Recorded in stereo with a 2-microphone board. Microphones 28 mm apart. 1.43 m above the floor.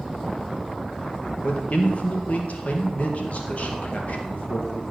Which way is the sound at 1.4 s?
55° left (ahead or behind).